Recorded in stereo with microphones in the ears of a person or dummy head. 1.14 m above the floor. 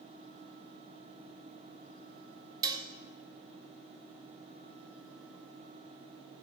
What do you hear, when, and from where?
2.6 s dishes clattering: 20° right (ahead or behind), 0.7 m